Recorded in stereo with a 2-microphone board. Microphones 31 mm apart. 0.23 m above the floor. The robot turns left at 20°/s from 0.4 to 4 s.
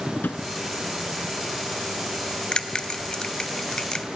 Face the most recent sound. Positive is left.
turn(degrees=20)  # may be behind; listen again after turning